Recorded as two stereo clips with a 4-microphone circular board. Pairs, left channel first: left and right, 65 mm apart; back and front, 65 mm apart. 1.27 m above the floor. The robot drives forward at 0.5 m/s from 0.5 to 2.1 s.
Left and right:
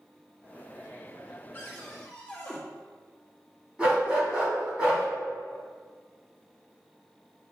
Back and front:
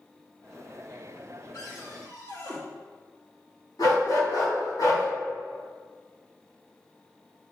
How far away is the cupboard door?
About 1.6 m.